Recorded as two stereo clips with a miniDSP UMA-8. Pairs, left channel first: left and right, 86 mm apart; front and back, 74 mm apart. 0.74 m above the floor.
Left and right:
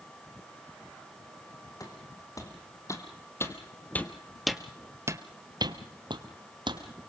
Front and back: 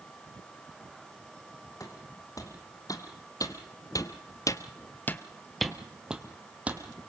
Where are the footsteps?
45° left, 3 m; by 6.8 s 110° right, 2 m.